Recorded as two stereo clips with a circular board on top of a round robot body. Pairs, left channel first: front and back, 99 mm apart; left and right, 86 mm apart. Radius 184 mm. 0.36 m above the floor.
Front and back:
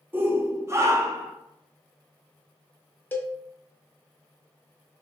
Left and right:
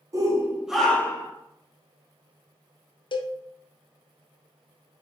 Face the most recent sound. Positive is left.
turn(degrees=70)